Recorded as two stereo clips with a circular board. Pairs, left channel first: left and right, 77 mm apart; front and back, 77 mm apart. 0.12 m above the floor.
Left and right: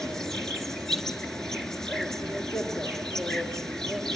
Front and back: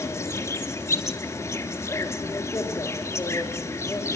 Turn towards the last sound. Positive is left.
turn(degrees=10)